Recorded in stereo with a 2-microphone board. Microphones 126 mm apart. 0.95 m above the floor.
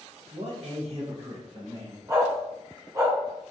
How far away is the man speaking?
About 0.5 m.